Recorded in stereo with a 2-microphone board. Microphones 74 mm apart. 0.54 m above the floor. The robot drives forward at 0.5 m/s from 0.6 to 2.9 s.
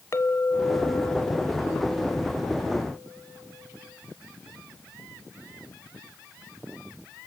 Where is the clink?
40° left (ahead or behind), 1.4 m; by 3.9 s 20° left (ahead or behind), 2.5 m.